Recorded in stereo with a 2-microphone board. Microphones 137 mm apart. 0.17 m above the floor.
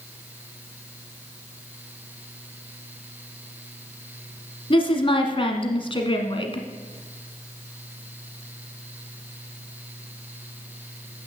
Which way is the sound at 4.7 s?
40° left (ahead or behind).